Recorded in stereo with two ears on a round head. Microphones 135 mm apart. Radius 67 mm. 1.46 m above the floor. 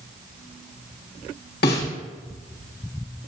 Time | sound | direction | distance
1.6 | a snare drum | 70° left (ahead or behind) | 2.5 m